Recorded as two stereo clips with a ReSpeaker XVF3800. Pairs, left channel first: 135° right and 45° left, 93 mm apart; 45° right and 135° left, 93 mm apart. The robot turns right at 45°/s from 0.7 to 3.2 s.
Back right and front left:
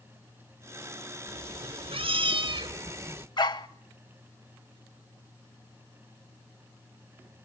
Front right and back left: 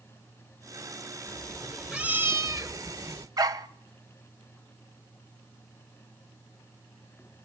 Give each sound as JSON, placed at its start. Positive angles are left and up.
{"t": 1.3, "sound": "a cat meowing", "azimuth_deg": 25, "distance_m": 1.3}
{"t": 3.4, "sound": "a dog barking", "azimuth_deg": -175, "distance_m": 0.7}